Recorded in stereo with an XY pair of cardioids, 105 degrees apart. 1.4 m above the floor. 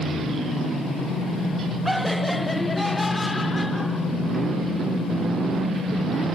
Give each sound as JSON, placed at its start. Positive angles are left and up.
{"t": 1.9, "sound": "laughter", "azimuth_deg": -5, "distance_m": 1.9}